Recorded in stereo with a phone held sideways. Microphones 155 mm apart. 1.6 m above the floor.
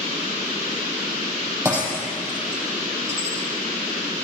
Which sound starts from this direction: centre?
Breaking glass, at 1.6 s.